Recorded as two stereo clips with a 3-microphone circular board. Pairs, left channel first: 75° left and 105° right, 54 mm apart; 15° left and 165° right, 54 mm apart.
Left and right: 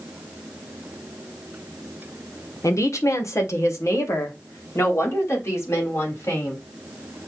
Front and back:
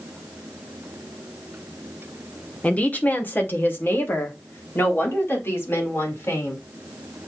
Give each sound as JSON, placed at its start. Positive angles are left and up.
{"t": 2.6, "sound": "a woman speaking", "azimuth_deg": 75, "distance_m": 1.1}